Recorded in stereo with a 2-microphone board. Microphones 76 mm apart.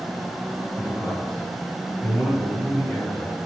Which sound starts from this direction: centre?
A man speaking, at 0.8 s.